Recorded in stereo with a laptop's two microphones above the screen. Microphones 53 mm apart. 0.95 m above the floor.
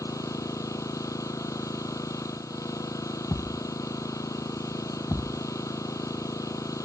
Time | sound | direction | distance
0.0 | an engine running | 90° left | ?
3.3 | a thud | 65° left (ahead or behind) | ?